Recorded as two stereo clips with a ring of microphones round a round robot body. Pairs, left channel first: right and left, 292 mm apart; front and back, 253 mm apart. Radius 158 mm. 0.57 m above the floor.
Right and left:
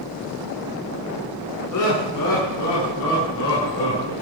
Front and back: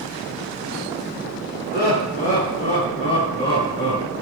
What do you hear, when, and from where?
1.7 s laughter: 60° right, 6.5 m; by 4.1 s 80° right, 7 m